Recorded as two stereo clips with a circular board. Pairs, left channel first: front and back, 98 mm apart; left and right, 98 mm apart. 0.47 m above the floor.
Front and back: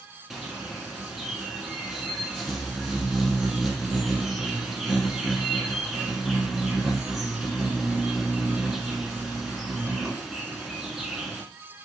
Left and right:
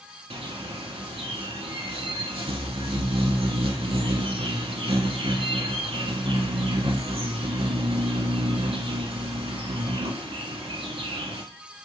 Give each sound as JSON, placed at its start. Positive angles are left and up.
{"t": 0.3, "sound": "a bird", "azimuth_deg": -95, "distance_m": 1.0}